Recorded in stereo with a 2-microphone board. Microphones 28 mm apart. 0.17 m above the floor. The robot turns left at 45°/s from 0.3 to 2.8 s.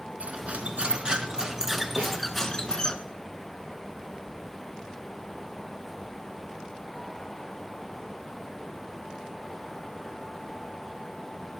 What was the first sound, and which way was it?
Cutlery clinking, 100° right.